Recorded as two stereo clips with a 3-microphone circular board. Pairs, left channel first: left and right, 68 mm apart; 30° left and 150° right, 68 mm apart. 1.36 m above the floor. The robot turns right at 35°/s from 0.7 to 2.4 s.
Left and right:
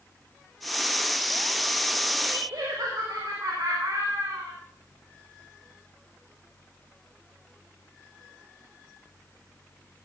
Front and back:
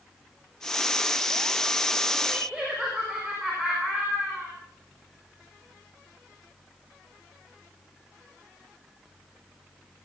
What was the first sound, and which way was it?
Laughter, 65° right.